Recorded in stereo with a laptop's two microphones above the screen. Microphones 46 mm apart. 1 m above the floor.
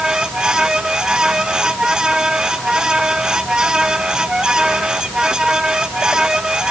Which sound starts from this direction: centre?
A fan, at 0.0 s.